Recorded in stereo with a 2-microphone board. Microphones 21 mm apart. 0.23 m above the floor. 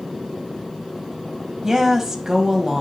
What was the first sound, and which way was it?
A woman speaking, 20° right (ahead or behind).